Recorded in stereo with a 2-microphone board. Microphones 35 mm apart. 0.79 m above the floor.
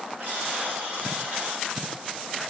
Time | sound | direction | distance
0.2 | a buzzer | 70° right (ahead or behind) | 8.5 m